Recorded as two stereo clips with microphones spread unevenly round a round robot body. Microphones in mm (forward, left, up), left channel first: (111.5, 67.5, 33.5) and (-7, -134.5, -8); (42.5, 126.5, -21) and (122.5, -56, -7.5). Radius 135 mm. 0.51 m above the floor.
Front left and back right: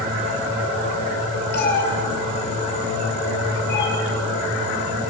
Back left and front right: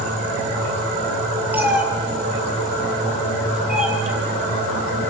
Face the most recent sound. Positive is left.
turn(degrees=20)